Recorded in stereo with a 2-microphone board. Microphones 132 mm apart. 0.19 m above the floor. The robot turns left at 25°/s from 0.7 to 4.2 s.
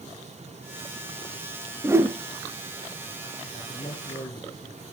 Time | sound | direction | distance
1.8 | a whoosh | 20° right (ahead or behind) | 1.8 m
3.5 | a man speaking | 35° left (ahead or behind) | 5.5 m